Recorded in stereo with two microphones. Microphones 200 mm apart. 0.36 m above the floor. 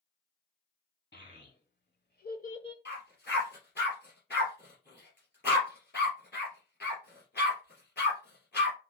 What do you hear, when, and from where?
1.1 s a child speaking: 65° left (ahead or behind), 1.9 m; by 2.8 s 20° left (ahead or behind), 0.7 m
2.9 s a dog barking: 60° left (ahead or behind), 3 m